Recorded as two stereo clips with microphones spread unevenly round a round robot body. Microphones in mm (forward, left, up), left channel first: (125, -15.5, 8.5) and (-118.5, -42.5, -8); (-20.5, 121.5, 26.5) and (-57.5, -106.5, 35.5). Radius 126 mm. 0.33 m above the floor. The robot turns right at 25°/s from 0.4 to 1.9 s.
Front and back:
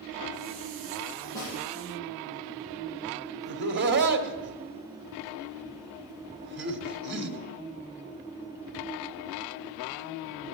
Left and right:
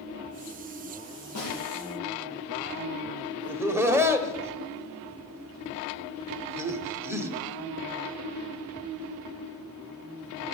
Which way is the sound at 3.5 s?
Straight behind.